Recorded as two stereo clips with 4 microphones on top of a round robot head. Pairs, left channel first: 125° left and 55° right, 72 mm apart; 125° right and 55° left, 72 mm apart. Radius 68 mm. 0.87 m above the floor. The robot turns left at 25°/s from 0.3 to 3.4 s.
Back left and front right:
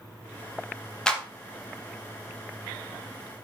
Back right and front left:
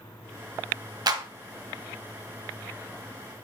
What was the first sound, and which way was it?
A clap, 45° left.